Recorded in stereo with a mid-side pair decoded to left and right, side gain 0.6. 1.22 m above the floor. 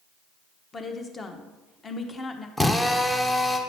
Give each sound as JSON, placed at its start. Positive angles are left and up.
{"t": 0.7, "sound": "a woman speaking", "azimuth_deg": 25, "distance_m": 1.0}
{"t": 2.6, "sound": "a drill", "azimuth_deg": 15, "distance_m": 0.8}